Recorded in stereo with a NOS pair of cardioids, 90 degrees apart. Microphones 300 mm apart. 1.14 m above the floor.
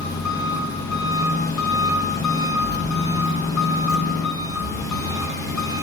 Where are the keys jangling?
45° left, 2.5 m.